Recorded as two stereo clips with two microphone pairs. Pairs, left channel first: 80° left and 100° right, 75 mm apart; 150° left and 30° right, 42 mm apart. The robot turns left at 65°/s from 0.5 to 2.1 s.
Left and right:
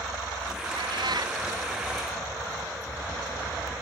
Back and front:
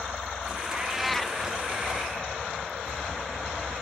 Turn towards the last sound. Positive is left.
turn(degrees=175)